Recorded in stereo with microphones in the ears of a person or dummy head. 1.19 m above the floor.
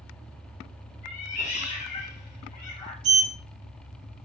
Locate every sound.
1.0 s a cat meowing: 40° left (ahead or behind), 2 m
3.0 s a sliding door: 65° right (ahead or behind), 1.6 m